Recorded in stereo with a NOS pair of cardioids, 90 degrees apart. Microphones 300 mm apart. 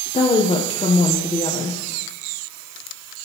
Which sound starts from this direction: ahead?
A woman speaking, at 0.1 s.